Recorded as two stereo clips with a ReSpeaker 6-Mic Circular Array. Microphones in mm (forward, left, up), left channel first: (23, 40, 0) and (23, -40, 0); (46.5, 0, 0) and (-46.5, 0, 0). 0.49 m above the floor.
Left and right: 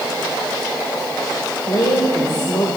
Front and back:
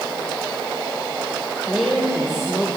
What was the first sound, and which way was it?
A woman speaking, 95° left.